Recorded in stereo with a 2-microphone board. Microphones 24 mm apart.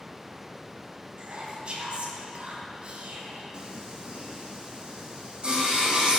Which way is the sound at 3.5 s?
35° right (ahead or behind).